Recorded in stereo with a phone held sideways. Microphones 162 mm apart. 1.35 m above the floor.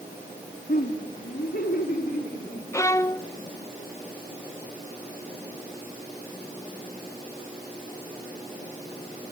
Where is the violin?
20° left (ahead or behind), 0.5 m.